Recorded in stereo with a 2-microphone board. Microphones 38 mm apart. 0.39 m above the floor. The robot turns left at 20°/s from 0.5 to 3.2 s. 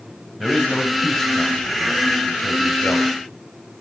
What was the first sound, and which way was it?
A man speaking, 175° left.